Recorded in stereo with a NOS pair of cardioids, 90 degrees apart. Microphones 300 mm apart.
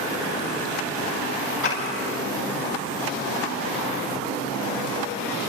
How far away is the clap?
About 9.5 m.